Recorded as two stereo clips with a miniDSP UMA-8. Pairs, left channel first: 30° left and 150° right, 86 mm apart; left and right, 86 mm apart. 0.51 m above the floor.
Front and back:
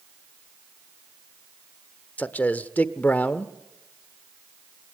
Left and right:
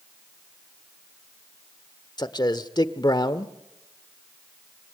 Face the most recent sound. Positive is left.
turn(degrees=95)